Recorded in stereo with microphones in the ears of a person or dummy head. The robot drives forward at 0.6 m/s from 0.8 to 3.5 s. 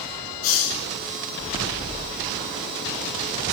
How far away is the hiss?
About 4 m.